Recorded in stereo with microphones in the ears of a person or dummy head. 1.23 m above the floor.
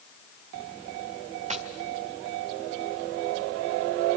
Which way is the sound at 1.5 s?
35° right (ahead or behind).